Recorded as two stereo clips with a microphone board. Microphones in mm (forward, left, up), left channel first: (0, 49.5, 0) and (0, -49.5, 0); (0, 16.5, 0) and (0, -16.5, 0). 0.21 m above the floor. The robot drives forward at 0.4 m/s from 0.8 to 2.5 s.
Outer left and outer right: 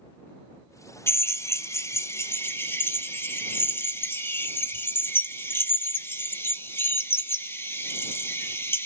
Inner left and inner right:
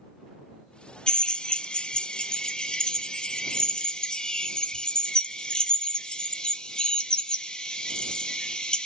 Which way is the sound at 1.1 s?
25° left (ahead or behind).